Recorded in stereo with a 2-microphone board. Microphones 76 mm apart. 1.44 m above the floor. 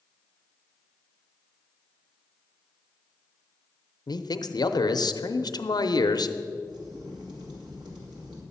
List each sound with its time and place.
4.1 s a man speaking: 60° left (ahead or behind), 0.6 m
6.7 s a crack: 75° right (ahead or behind), 2 m